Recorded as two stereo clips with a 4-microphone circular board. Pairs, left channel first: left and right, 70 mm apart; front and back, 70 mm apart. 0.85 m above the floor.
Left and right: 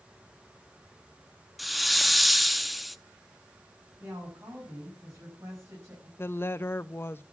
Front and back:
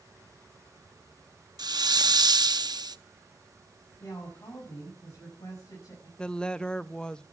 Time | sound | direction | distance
1.6 | a hiss | straight behind | 0.6 m
4.0 | a woman speaking | 40° right | 6.5 m
6.2 | a woman speaking | 70° left | 0.5 m